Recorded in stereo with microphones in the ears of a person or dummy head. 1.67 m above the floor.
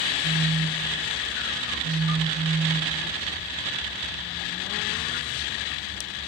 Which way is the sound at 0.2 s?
55° right (ahead or behind).